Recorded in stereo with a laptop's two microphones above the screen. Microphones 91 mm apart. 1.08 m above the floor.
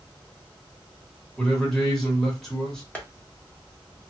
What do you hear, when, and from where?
1.4 s a man speaking: 5° left (ahead or behind), 1.2 m
3.0 s tapping: 15° left (ahead or behind), 1.2 m